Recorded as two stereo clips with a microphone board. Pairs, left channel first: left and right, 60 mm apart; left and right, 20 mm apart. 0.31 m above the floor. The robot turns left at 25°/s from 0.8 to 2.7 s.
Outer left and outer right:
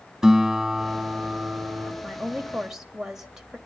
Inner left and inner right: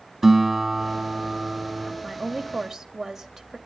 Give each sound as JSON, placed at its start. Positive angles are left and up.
{"t": 0.2, "sound": "a guitar", "side_deg": -5, "distance_m": 2.0}
{"t": 2.0, "sound": "a woman speaking", "side_deg": 0, "distance_m": 1.7}